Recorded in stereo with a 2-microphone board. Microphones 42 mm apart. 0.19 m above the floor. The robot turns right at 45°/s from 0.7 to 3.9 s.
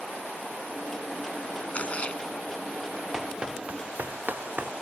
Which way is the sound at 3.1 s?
10° right (ahead or behind).